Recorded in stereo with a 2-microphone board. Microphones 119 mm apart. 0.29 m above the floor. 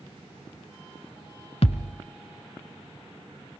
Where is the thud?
65° left (ahead or behind), 1.1 m.